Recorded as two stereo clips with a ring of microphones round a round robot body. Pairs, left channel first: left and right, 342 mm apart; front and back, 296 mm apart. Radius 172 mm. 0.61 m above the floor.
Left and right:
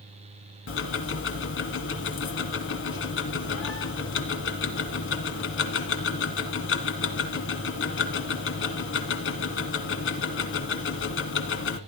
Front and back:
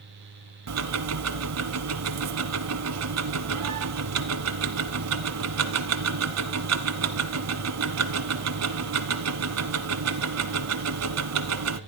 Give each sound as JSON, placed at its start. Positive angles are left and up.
{"t": 0.7, "sound": "ticking", "azimuth_deg": 145, "distance_m": 1.2}